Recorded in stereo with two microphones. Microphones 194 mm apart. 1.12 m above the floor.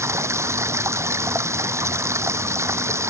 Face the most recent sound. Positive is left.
turn(degrees=-15)  # may be behind; listen again after turning